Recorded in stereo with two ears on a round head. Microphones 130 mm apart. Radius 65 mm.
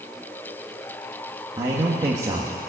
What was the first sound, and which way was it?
A man speaking, 25° right (ahead or behind).